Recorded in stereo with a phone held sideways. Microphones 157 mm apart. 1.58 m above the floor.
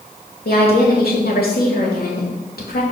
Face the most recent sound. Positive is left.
turn(degrees=80)